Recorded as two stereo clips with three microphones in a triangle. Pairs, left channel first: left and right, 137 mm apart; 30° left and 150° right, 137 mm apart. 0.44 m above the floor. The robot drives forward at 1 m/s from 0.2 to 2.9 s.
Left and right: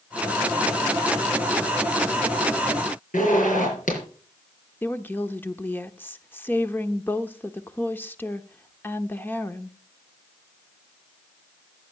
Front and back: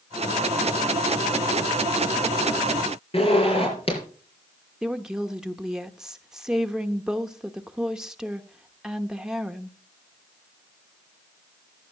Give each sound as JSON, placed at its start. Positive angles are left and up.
{"t": 3.1, "sound": "a zipper", "azimuth_deg": 75, "distance_m": 6.0}
{"t": 4.8, "sound": "a woman speaking", "azimuth_deg": 135, "distance_m": 0.8}